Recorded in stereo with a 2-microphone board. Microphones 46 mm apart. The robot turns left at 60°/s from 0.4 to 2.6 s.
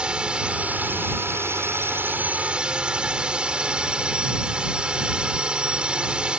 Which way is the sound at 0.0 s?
25° right.